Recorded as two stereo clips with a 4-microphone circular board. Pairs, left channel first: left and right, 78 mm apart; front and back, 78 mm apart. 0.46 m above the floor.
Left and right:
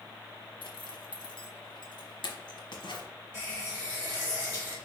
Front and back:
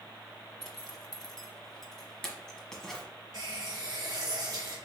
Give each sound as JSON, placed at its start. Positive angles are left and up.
{"t": 0.6, "sound": "a zipper", "azimuth_deg": 85, "distance_m": 1.0}
{"t": 3.3, "sound": "a running tap", "azimuth_deg": -160, "distance_m": 2.5}